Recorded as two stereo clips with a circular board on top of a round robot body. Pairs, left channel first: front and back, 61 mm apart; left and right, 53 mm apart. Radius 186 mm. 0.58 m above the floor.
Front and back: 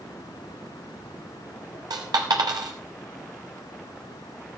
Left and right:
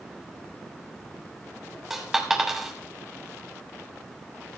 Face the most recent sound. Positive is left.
turn(degrees=-175)